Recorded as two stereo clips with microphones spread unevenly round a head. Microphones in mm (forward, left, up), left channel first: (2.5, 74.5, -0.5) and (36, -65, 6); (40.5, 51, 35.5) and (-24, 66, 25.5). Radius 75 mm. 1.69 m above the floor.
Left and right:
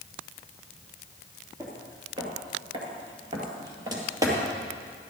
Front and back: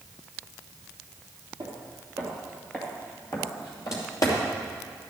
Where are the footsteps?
130° right, 2.5 m; by 4.4 s 15° right, 3 m.